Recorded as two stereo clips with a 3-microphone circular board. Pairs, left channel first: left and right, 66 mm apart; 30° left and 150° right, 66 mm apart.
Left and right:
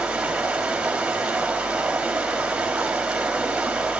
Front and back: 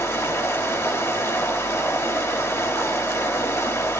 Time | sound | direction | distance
0.0 | running water | 15° right | 3.5 m